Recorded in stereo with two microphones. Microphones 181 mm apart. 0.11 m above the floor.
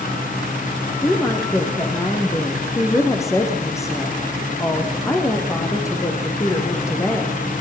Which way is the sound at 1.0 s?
15° left (ahead or behind).